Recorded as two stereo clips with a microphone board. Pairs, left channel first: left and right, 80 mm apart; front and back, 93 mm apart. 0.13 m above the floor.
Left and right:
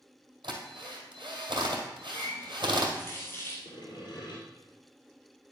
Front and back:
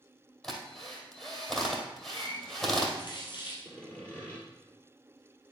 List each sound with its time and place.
0.4 s a drill: 85° right, 2 m
2.1 s a running tap: 30° left, 2.5 m
3.6 s sawing: 75° left, 3 m